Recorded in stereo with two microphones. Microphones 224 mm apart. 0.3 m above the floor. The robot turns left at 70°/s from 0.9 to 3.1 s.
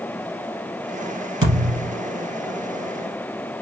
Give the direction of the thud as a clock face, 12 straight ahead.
2 o'clock.